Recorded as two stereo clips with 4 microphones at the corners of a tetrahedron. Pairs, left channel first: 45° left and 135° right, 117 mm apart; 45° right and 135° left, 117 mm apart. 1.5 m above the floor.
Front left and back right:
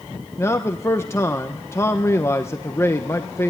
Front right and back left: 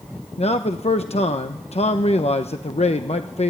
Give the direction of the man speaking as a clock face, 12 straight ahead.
1 o'clock.